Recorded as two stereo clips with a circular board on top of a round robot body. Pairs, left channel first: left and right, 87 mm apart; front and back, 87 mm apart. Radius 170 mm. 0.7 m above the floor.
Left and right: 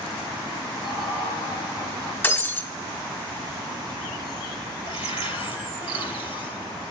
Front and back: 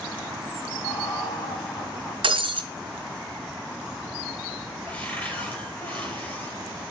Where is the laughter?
45° left, 5.5 m.